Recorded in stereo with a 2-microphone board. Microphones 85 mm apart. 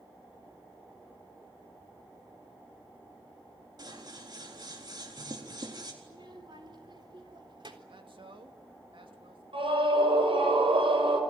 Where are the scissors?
50° right (ahead or behind), 4 m.